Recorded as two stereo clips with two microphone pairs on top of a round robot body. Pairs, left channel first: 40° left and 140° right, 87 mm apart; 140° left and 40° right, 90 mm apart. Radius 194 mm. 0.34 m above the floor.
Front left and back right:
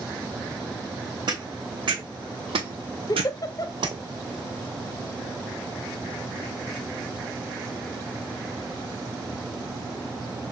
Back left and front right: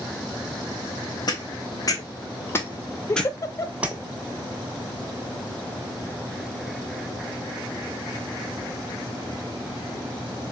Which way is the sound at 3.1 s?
85° left.